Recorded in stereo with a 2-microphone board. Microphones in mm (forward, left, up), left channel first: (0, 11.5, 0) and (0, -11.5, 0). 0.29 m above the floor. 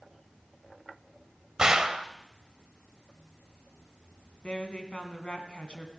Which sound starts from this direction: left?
A woman speaking, at 4.4 s.